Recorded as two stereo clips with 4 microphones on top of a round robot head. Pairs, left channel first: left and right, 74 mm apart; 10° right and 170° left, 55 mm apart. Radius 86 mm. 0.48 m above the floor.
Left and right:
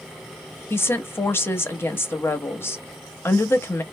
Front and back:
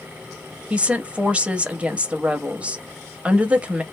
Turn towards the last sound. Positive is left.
turn(degrees=120)